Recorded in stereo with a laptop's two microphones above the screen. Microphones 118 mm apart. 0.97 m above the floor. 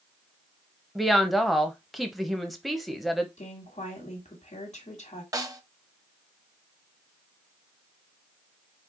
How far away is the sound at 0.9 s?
About 0.8 m.